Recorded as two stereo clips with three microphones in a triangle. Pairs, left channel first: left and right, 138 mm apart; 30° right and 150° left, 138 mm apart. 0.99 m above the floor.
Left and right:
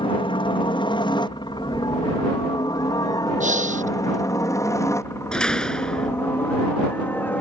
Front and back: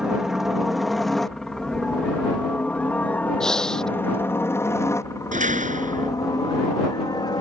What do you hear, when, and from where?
0.0 s a helicopter: 65° left; by 7.4 s 20° left
3.4 s breathing: 115° right
5.3 s a door slam: 175° left